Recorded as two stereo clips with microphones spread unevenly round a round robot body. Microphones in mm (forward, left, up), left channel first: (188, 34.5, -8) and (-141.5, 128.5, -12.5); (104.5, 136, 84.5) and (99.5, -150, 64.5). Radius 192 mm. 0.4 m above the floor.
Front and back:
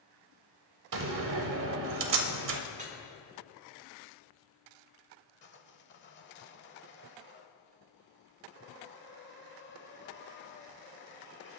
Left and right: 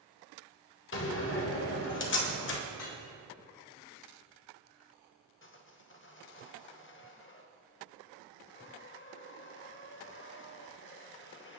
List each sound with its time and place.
0.9 s a door slam: 140° left, 1.1 m
2.7 s dripping: 95° left, 3.5 m
5.4 s sawing: 40° left, 1.3 m